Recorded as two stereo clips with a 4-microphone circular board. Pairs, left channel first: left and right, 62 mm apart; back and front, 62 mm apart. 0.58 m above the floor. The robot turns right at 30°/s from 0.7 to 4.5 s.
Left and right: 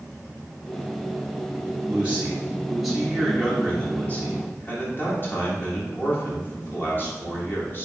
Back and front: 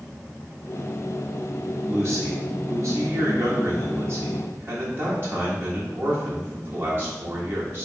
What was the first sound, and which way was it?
A man speaking, 35° right.